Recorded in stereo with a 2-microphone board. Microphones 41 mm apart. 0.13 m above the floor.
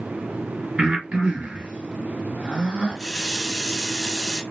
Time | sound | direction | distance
0.8 | breathing | 25° right (ahead or behind) | 2.0 m
3.0 | a running tap | centre (ahead or behind) | 1.1 m